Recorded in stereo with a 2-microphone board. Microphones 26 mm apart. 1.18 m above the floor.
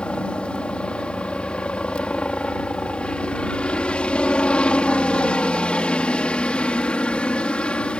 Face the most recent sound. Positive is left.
turn(degrees=45)  # may be behind; listen again after turning